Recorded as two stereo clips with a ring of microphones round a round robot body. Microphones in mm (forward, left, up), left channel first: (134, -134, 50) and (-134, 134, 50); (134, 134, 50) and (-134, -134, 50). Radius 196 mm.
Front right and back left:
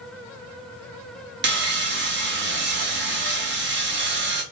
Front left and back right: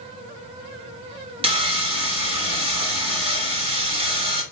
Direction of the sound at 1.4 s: 160° left.